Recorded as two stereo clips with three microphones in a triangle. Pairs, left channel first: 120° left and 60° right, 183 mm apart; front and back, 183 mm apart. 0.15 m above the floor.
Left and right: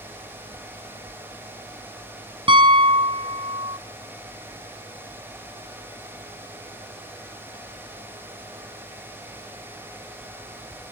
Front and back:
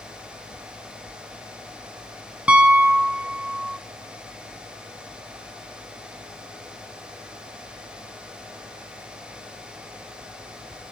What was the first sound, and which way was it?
A piano, 100° right.